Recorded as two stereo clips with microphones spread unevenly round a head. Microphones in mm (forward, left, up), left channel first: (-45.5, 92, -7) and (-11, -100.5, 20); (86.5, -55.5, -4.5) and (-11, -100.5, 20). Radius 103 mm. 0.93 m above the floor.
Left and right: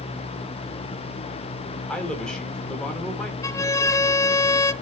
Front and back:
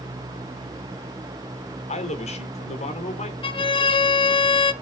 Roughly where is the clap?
No clap in this recording.